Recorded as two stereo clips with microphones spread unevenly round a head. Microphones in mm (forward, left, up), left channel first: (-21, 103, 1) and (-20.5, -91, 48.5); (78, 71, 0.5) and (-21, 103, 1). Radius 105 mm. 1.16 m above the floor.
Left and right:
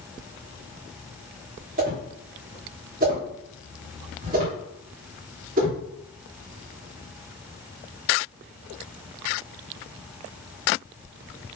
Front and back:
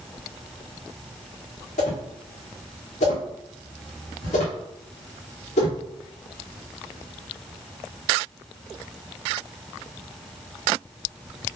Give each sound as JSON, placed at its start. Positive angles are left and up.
{"t": 1.8, "sound": "a whoosh", "azimuth_deg": -40, "distance_m": 2.5}